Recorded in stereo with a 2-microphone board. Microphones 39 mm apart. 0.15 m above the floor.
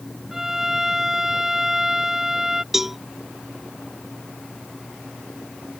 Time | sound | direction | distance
0.3 | a violin | 10° right (ahead or behind) | ?
2.7 | a cowbell | 5° right (ahead or behind) | ?